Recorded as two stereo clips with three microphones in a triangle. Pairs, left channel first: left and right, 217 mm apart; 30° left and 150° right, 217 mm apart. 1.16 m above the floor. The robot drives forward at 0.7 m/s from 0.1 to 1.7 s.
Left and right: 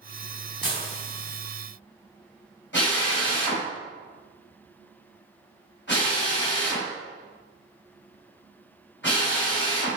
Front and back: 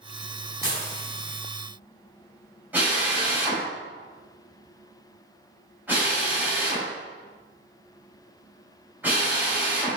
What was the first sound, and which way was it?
Dishes clattering, 135° left.